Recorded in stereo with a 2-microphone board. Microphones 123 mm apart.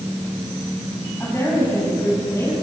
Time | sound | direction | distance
1.2 | a woman speaking | 15° left (ahead or behind) | 6.5 m